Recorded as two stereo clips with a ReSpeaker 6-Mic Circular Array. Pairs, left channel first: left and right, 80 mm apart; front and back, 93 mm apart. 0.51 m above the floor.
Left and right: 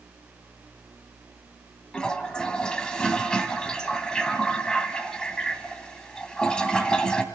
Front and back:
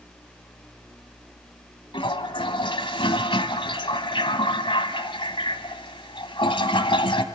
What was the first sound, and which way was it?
A toilet flushing, 10° left.